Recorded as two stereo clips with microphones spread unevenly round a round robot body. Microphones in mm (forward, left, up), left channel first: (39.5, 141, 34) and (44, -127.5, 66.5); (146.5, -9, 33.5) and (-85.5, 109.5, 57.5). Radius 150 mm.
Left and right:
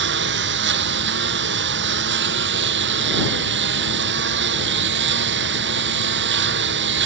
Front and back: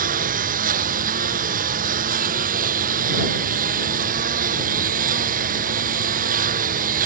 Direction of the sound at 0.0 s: 145° right.